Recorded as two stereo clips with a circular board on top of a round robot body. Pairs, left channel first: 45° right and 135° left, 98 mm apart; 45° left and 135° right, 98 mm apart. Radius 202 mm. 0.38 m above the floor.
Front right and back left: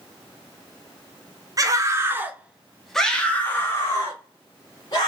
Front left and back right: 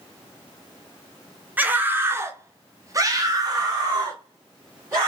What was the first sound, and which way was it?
A scream, 160° left.